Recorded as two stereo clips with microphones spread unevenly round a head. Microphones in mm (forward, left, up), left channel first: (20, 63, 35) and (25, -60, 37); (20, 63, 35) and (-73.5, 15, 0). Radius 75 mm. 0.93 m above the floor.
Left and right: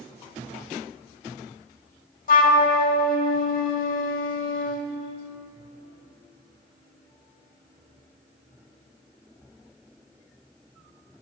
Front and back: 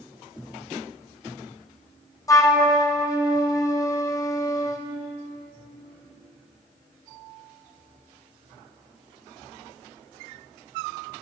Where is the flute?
85° left, 0.9 m.